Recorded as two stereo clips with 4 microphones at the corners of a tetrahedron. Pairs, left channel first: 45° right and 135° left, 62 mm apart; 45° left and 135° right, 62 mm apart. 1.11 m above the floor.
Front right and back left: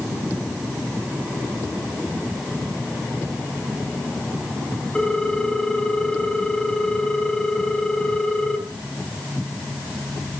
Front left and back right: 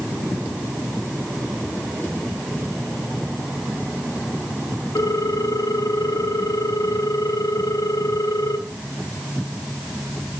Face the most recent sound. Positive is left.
turn(degrees=35)